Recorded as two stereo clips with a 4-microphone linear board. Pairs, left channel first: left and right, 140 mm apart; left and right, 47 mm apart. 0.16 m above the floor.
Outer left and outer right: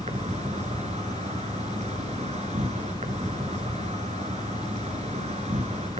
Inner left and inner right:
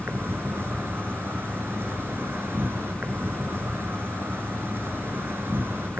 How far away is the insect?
About 1.3 m.